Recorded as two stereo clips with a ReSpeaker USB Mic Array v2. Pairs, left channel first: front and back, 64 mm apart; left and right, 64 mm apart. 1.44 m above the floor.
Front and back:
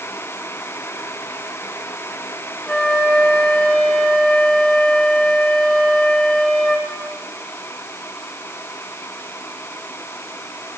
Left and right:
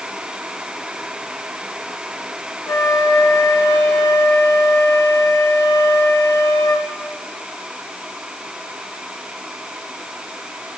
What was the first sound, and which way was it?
A flute, 75° left.